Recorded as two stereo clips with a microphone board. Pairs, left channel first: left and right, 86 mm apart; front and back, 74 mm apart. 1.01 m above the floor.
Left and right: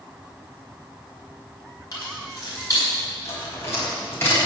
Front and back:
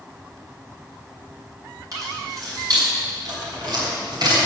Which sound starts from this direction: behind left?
Keys jangling, at 1.9 s.